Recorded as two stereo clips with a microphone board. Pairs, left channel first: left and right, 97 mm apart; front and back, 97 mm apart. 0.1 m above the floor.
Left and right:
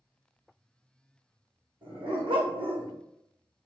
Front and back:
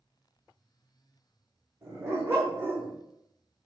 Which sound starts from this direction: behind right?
A dog barking, at 1.8 s.